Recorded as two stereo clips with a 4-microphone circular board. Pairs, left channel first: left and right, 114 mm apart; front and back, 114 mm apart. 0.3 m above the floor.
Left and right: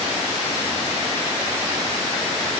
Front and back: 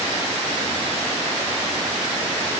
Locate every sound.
Only background noise.